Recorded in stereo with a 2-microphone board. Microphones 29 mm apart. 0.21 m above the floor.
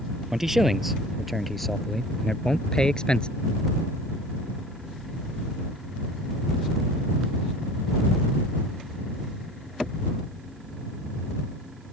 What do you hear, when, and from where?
0.3 s a man speaking: 15° right (ahead or behind); by 3.3 s 35° left (ahead or behind)